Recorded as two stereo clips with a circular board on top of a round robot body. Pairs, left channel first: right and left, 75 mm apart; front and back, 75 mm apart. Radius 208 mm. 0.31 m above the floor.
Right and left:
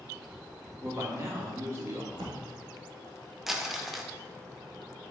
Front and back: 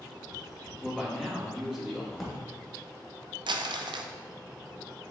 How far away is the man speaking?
About 1.6 m.